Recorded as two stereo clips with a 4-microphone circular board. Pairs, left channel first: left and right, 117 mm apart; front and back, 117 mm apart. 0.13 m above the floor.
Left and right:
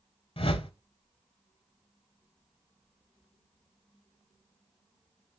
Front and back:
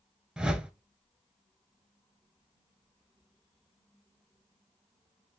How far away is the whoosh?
About 0.6 m.